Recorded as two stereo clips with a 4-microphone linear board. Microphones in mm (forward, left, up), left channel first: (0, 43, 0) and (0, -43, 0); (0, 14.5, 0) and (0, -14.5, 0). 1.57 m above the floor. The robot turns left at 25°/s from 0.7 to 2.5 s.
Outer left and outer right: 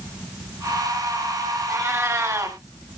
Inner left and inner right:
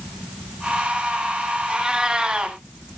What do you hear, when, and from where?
1.7 s a cat meowing: 30° right (ahead or behind), 1.7 m; by 2.6 s 35° right (ahead or behind), 1.7 m